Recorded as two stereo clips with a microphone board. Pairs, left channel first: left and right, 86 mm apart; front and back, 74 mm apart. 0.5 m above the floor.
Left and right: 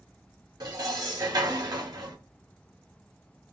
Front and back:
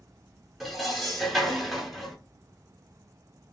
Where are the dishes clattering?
90° right, 0.8 m.